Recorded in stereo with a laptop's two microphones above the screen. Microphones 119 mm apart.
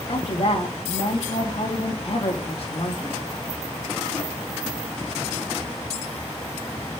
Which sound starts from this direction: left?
A woman speaking, at 0.1 s.